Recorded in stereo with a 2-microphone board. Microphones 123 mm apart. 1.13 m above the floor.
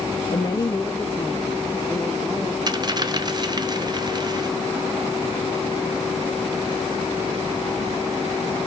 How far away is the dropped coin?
About 0.5 m.